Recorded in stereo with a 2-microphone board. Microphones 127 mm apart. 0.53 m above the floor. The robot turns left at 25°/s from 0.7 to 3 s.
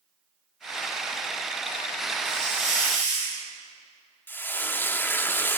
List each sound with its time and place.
2.2 s a hiss: 60° right (ahead or behind), 6.5 m; by 3.4 s 75° right (ahead or behind), 6.5 m
4.3 s frying: 15° left (ahead or behind), 0.5 m